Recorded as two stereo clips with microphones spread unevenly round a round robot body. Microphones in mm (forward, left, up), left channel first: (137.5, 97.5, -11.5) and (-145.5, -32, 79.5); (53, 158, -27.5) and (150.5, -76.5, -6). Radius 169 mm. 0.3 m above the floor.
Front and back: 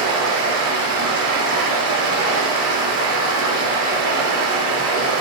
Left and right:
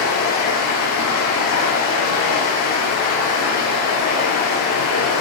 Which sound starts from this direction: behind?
Running water, at 0.0 s.